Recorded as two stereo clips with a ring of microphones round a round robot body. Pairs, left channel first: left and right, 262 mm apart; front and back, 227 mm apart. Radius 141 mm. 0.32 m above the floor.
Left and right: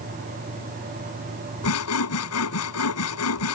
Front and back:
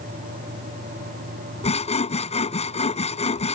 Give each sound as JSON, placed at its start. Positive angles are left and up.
{"t": 1.6, "sound": "sawing", "azimuth_deg": 60}